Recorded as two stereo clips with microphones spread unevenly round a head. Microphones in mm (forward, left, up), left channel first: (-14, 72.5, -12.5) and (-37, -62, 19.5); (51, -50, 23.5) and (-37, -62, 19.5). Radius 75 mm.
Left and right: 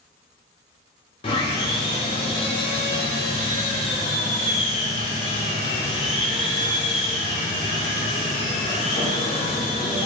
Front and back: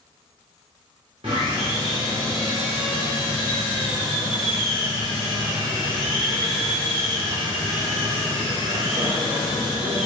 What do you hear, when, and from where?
1.2 s sawing: 135° left, 1.6 m